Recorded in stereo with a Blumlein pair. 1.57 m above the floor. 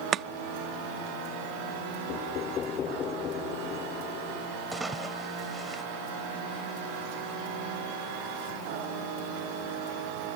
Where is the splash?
10° right.